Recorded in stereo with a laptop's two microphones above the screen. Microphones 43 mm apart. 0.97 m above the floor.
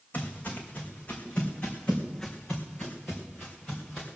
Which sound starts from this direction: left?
Footsteps, at 0.1 s.